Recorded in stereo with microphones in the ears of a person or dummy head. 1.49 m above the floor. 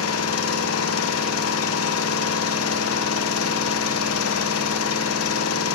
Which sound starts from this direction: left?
An engine running, at 0.0 s.